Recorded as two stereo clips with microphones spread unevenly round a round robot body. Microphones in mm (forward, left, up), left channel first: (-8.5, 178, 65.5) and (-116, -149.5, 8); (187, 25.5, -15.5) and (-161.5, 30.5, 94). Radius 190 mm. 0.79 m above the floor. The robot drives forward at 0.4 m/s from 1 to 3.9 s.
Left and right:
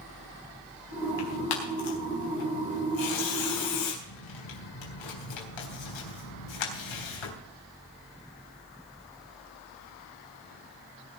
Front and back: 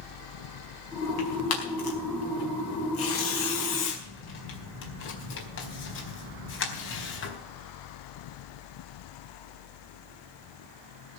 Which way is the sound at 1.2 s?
45° left.